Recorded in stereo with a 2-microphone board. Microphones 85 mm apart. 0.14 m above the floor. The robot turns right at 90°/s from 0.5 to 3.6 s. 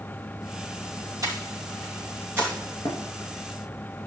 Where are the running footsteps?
65° left (ahead or behind), 8 m; by 3.0 s 75° left (ahead or behind), 8 m.